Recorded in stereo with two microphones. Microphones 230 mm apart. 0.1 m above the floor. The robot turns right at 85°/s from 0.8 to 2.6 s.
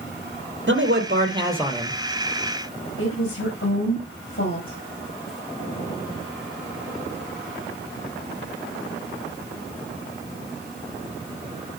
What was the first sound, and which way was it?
A man speaking, 75° right.